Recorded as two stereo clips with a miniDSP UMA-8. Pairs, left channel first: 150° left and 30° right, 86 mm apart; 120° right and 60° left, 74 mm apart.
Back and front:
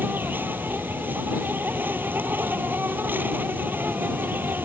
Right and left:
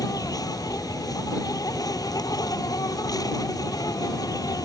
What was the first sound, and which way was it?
An insect, 95° right.